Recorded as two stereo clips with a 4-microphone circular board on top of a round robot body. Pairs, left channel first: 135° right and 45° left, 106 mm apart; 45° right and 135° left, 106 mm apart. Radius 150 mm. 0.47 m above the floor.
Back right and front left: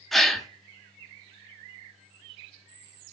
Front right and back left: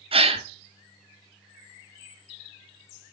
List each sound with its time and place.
0.1 s a gasp: 135° left, 1.5 m